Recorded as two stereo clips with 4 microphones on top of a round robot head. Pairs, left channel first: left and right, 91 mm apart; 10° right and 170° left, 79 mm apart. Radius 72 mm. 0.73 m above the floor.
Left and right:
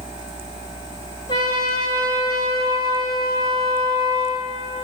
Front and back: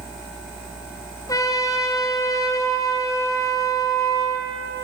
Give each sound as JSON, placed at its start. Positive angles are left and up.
{"t": 1.3, "sound": "a trumpet", "azimuth_deg": 35, "distance_m": 2.0}